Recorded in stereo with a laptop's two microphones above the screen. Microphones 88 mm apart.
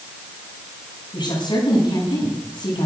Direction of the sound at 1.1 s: 60° left (ahead or behind).